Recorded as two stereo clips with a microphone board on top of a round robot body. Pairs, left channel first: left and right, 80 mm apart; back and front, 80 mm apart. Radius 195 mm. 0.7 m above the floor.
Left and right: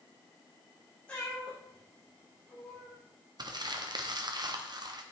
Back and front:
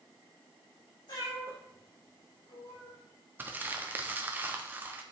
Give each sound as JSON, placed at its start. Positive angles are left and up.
{"t": 1.1, "sound": "a cat meowing", "azimuth_deg": 160, "distance_m": 6.5}
{"t": 3.4, "sound": "crumpling", "azimuth_deg": -65, "distance_m": 1.4}